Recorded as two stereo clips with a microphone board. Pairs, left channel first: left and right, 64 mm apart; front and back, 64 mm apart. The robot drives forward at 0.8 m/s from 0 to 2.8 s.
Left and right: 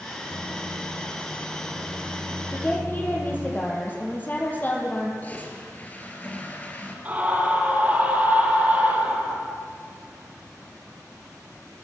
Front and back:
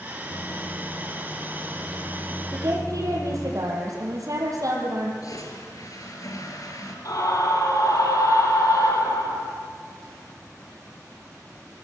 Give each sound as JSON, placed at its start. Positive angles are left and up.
{"t": 0.3, "sound": "a microwave", "azimuth_deg": -15, "distance_m": 9.5}
{"t": 2.5, "sound": "a woman speaking", "azimuth_deg": 150, "distance_m": 7.5}
{"t": 5.2, "sound": "a toilet flushing", "azimuth_deg": 25, "distance_m": 5.0}
{"t": 7.0, "sound": "a scream", "azimuth_deg": -25, "distance_m": 7.0}